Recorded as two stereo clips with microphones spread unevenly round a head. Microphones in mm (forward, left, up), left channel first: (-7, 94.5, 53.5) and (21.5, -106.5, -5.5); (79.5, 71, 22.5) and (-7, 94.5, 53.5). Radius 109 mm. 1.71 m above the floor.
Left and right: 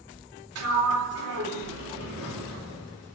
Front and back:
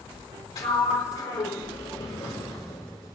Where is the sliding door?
70° right, 4 m.